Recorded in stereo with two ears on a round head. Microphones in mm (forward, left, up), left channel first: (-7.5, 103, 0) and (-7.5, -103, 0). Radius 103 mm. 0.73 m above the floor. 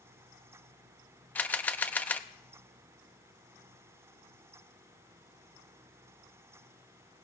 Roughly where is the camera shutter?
Centre.